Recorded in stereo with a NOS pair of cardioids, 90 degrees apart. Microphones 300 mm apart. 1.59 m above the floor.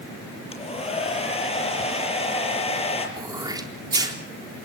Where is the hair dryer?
20° left, 6 m.